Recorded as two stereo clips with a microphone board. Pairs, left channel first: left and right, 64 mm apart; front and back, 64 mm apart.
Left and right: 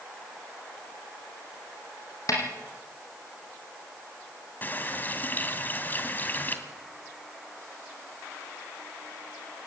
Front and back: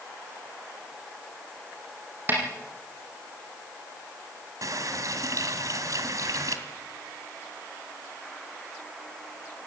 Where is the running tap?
150° left, 2.5 m.